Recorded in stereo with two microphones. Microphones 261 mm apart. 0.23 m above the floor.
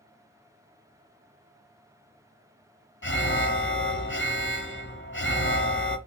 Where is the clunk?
No clunk in this recording.